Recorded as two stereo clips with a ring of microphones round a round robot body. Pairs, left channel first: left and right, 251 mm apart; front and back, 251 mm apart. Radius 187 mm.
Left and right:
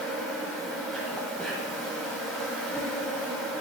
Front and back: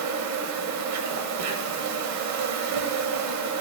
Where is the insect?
175° left, 0.8 m.